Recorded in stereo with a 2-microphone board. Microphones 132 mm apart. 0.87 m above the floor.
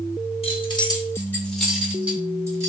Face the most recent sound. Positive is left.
turn(degrees=-25)  # may be behind; listen again after turning